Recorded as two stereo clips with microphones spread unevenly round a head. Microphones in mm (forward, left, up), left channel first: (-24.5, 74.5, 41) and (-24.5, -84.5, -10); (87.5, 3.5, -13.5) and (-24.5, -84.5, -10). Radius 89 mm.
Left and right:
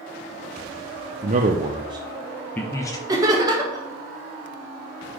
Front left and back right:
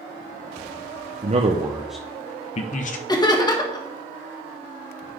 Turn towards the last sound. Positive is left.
turn(degrees=-25)